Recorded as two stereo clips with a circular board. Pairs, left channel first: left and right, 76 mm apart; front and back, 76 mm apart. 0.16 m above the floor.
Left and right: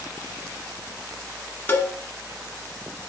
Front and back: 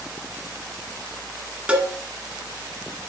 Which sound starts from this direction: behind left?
A cowbell, at 1.7 s.